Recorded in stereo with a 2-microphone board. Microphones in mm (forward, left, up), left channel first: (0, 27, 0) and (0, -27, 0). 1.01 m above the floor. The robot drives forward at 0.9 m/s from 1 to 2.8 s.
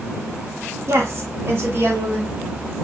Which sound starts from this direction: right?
A woman speaking, at 0.9 s.